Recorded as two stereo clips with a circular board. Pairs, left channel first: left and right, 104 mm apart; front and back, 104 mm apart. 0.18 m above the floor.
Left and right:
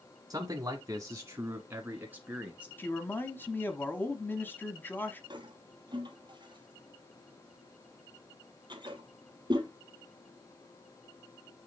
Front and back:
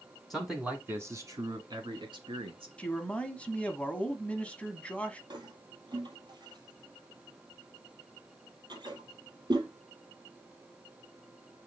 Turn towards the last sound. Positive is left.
turn(degrees=-135)